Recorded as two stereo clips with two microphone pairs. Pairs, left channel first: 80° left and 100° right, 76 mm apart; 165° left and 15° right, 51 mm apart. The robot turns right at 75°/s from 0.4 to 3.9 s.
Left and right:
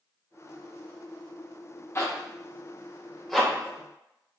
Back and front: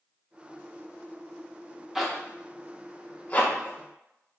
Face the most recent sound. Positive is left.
turn(degrees=-140)